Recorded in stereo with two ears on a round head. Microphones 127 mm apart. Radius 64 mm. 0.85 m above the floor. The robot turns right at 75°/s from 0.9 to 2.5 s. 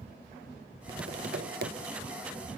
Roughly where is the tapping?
Behind right.